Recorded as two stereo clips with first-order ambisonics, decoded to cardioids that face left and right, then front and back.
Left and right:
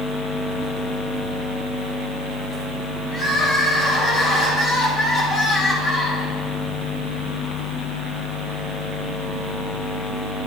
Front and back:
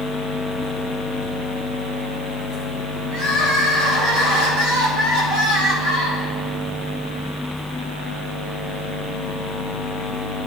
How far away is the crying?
About 4.5 m.